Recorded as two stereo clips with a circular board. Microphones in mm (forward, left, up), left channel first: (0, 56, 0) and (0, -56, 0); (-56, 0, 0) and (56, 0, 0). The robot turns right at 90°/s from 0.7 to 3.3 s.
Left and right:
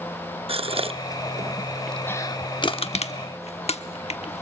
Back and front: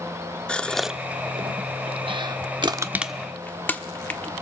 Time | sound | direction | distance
0.5 | a gasp | 100° right | 0.6 m
2.6 | crushing | 45° left | 1.0 m